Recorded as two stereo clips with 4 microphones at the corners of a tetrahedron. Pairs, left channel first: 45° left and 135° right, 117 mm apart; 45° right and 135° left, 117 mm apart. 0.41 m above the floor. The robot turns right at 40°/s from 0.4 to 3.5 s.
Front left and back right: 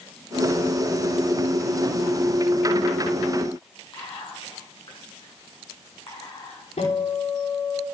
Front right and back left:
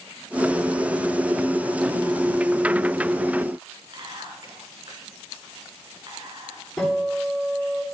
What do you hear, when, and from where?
3.9 s whispering: 90° left, 5 m
6.8 s a guitar: 40° left, 8 m